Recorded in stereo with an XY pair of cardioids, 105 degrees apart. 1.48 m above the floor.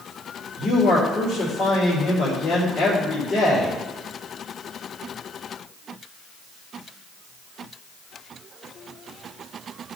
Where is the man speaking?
60° left, 3.5 m.